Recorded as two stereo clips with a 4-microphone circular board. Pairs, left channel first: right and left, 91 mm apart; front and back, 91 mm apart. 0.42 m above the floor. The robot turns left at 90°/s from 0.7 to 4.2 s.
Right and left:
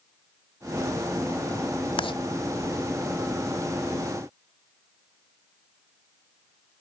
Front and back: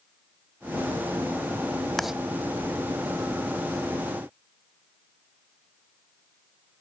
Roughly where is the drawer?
I don't hear a drawer.